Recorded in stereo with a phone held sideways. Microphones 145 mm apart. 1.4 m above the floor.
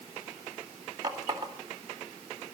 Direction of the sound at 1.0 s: 30° right (ahead or behind).